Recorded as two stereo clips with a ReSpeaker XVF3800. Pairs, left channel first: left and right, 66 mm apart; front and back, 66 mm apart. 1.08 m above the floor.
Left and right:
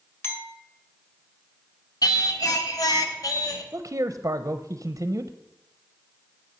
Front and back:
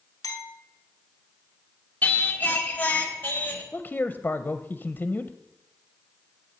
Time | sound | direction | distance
0.2 | a clink | 35° left | 2 m
2.0 | singing | 65° left | 1.1 m
3.7 | a man speaking | 60° right | 0.5 m